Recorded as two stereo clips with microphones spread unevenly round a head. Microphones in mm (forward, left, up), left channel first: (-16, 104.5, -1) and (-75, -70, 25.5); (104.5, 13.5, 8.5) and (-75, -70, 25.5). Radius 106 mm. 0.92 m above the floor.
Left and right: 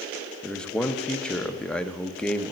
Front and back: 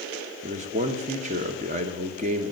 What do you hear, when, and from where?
0.4 s a man speaking: 150° left, 0.8 m